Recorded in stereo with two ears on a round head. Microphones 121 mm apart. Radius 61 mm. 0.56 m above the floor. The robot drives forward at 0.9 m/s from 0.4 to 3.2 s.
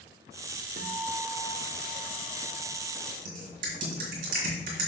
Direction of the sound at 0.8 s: 60° right (ahead or behind).